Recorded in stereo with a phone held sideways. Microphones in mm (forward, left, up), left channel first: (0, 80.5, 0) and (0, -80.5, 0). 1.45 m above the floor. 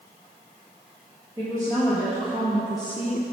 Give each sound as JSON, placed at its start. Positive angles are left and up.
{"t": 1.4, "sound": "a woman speaking", "side_deg": -20, "distance_m": 2.5}